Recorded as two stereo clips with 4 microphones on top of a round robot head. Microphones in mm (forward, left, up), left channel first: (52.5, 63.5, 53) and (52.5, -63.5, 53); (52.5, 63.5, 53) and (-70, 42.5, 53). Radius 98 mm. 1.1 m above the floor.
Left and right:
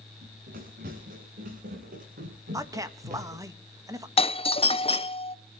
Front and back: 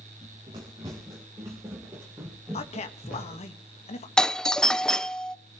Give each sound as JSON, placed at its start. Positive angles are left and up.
{"t": 0.2, "sound": "running footsteps", "azimuth_deg": -105, "distance_m": 7.5}
{"t": 2.5, "sound": "a man speaking", "azimuth_deg": -25, "distance_m": 1.8}
{"t": 4.2, "sound": "a doorbell", "azimuth_deg": 95, "distance_m": 0.6}